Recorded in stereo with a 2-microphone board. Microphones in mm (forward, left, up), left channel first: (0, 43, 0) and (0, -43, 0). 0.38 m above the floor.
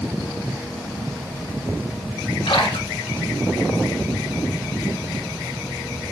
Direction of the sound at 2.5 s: 80° left.